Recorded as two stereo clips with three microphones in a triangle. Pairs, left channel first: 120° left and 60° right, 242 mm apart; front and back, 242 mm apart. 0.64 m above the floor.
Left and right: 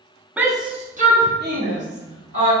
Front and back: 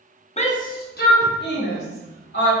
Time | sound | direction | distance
0.4 | a shout | 20° left | 0.6 m